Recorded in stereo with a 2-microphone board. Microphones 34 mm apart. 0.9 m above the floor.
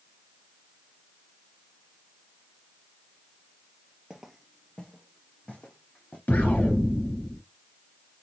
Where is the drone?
No drone in this recording.